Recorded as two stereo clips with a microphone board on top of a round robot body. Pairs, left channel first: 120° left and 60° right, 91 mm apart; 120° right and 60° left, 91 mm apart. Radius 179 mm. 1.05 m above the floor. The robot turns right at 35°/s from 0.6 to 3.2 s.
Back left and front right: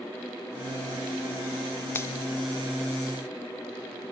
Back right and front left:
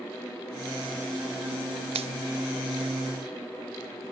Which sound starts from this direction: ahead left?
A finger snap, at 1.9 s.